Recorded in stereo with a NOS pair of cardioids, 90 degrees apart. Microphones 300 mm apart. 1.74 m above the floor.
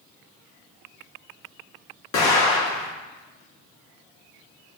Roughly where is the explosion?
Ahead left.